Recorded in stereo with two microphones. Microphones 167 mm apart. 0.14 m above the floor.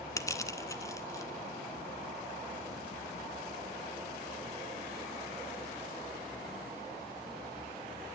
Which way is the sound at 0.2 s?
20° left (ahead or behind).